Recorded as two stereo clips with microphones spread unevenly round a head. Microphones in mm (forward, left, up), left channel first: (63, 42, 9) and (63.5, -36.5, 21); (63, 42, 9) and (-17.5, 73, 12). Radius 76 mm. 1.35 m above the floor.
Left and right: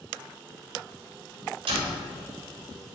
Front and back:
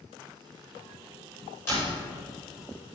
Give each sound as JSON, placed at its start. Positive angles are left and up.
{"t": 1.7, "sound": "a door slam", "azimuth_deg": -100, "distance_m": 4.0}